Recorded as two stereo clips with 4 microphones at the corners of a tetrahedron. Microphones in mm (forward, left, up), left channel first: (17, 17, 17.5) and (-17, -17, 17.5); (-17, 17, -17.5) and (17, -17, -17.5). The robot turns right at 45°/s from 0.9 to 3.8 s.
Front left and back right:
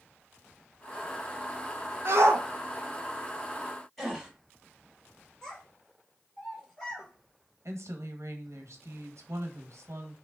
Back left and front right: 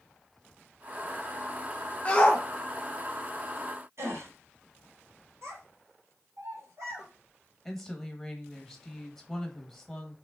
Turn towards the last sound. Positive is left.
turn(degrees=-140)